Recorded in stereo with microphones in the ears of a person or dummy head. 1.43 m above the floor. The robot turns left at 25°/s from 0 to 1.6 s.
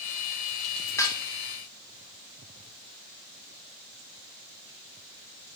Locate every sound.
1.0 s dishes clattering: 15° left (ahead or behind), 1.3 m; by 1.2 s 20° left (ahead or behind), 1.3 m